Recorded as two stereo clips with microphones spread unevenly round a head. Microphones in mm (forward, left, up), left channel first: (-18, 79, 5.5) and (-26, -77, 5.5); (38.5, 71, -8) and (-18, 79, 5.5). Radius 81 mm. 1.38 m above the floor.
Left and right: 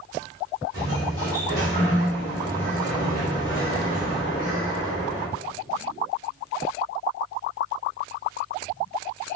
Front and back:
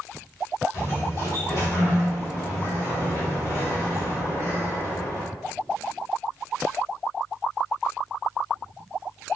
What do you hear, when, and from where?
0.7 s a sliding door: 25° right, 1.8 m